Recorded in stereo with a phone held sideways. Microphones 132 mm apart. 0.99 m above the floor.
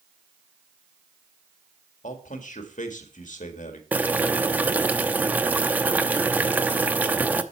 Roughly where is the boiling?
Centre.